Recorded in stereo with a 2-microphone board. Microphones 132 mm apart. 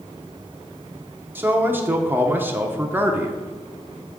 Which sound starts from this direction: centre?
A man speaking, at 1.4 s.